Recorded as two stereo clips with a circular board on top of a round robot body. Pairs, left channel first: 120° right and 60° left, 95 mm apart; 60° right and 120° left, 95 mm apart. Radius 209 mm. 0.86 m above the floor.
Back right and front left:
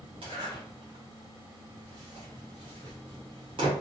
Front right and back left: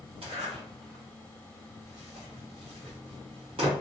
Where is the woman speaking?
I don't hear a woman speaking.